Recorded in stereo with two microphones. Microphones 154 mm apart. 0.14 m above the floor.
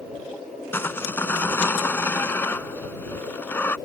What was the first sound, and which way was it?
Sawing, 15° left (ahead or behind).